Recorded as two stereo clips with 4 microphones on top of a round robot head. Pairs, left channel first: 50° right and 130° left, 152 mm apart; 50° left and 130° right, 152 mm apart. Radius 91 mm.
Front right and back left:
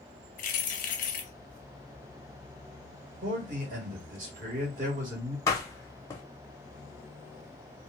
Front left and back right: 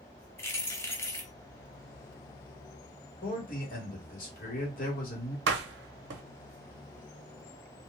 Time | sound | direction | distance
0.4 | keys jangling | 25° right | 0.6 m
3.2 | a man speaking | 90° left | 1.6 m
5.5 | a door slam | 125° right | 0.6 m